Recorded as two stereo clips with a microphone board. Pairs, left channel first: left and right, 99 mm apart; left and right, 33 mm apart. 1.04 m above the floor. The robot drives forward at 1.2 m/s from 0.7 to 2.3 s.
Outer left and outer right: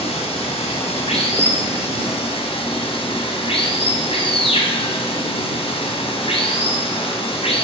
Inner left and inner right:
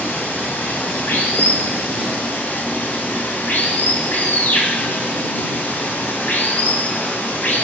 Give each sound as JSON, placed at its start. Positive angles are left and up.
{"t": 0.0, "sound": "running water", "side_deg": 85, "distance_m": 4.5}